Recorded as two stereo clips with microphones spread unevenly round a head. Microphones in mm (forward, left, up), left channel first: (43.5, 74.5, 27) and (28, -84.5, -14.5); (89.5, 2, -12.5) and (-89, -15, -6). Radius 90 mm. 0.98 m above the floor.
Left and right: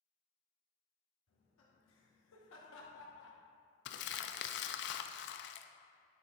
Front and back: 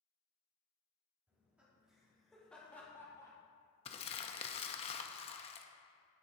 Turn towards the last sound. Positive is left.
turn(degrees=65)